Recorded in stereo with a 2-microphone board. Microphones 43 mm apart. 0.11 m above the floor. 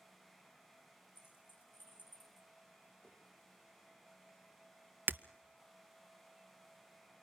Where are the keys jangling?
50° left (ahead or behind), 5.5 m.